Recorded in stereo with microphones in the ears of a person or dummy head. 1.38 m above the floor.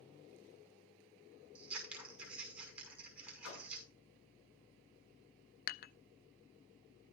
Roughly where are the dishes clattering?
Left.